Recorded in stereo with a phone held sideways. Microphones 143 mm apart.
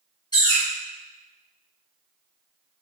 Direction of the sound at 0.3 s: 30° left (ahead or behind).